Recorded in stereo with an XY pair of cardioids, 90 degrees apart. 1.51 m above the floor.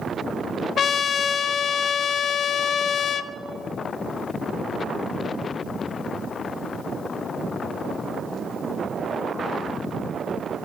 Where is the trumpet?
60° left, 0.5 m.